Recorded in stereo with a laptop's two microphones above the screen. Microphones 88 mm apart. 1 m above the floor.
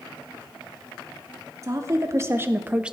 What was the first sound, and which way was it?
A woman speaking, 35° right (ahead or behind).